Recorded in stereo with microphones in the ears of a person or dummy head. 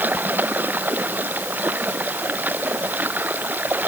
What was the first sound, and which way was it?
Running water, 10° right (ahead or behind).